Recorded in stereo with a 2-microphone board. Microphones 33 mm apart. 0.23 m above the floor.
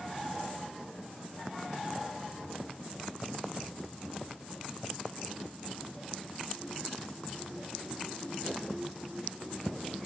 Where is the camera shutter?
No camera shutter in this recording.